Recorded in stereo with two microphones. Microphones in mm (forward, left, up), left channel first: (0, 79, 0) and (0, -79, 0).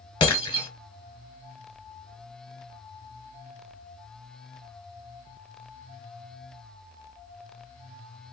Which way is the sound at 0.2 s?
30° left (ahead or behind).